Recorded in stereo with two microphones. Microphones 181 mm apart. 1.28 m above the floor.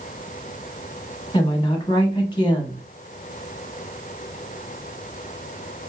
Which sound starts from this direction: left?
A woman speaking, at 1.3 s.